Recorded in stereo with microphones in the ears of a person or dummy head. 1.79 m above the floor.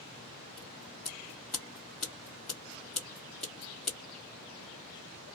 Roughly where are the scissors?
Centre.